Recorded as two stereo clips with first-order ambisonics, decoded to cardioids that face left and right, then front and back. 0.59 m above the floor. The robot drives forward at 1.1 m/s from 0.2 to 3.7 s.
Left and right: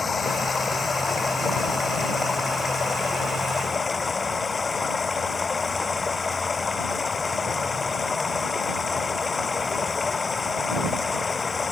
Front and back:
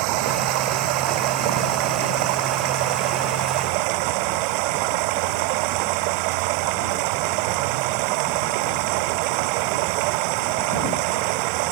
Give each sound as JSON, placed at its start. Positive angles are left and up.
{"t": 0.0, "sound": "running water", "azimuth_deg": 165}